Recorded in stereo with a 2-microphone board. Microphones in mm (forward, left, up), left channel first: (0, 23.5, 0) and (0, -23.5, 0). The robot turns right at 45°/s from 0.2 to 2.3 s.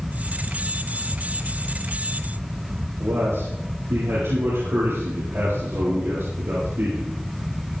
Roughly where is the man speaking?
Right.